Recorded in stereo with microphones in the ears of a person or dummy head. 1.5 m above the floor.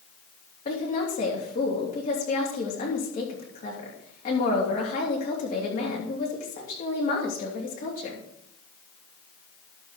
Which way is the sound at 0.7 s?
45° left (ahead or behind).